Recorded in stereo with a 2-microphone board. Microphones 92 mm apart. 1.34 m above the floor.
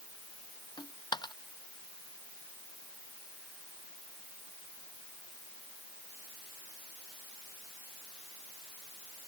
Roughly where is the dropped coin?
Left.